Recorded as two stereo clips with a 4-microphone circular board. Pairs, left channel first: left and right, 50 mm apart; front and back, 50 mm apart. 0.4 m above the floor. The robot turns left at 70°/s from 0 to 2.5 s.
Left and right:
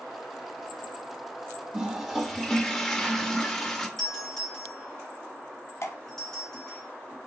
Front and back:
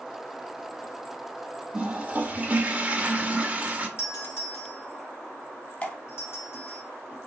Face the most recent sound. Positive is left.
turn(degrees=60)